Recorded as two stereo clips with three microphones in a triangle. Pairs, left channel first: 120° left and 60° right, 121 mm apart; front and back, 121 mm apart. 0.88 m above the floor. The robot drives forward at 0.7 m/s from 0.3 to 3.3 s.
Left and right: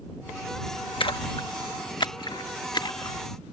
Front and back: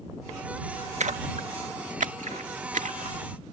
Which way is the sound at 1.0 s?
165° left.